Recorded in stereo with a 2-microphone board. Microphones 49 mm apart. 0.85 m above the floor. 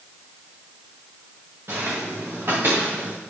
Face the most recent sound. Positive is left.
turn(degrees=-50)  # may be behind; listen again after turning